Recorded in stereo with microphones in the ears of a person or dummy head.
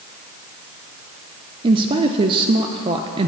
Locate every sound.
1.6 s a woman speaking: 30° right (ahead or behind), 0.5 m